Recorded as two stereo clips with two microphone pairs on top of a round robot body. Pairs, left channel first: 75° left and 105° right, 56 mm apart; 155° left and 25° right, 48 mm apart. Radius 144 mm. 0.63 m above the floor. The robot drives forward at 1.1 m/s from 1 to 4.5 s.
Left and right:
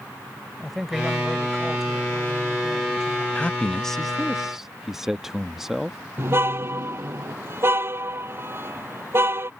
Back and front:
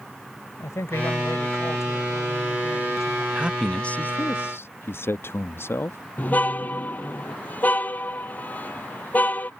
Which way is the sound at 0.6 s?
170° left.